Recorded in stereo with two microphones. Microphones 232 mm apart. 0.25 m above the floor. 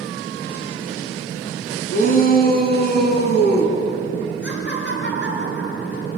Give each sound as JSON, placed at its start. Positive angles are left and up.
{"t": 1.9, "sound": "a shout", "side_deg": 40, "distance_m": 3.5}
{"t": 4.4, "sound": "laughter", "side_deg": 50, "distance_m": 4.5}